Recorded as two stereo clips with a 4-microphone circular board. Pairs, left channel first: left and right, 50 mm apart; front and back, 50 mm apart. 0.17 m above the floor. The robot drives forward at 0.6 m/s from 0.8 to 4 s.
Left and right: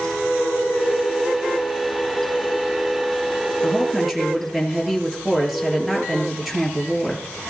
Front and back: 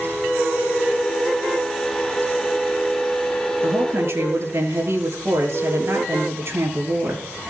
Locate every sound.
3.6 s a woman speaking: 175° right, 3.5 m